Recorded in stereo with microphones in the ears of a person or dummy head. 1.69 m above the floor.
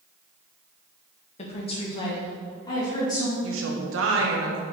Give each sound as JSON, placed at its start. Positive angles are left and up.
{"t": 1.4, "sound": "a woman speaking", "side_deg": 35, "distance_m": 1.2}
{"t": 3.4, "sound": "a woman speaking", "side_deg": -85, "distance_m": 1.3}